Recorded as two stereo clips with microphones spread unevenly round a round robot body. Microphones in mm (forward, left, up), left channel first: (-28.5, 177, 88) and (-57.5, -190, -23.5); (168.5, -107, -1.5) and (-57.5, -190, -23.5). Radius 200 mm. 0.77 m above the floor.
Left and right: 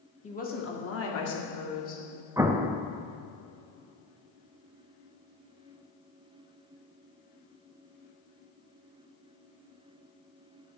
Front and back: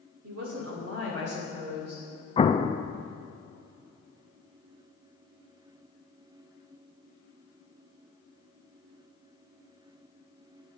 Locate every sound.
0.2 s a woman speaking: 165° left, 1.9 m; by 2.0 s 130° left, 3 m
2.4 s an explosion: 45° right, 0.5 m